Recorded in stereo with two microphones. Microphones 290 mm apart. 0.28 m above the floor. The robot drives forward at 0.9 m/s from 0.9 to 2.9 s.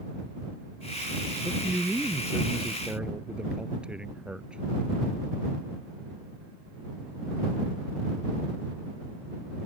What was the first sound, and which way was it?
A man speaking, 5° right (ahead or behind).